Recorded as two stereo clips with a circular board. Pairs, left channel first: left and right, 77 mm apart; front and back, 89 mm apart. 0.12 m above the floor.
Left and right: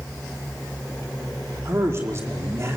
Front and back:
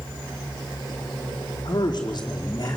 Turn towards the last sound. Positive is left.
turn(degrees=-40)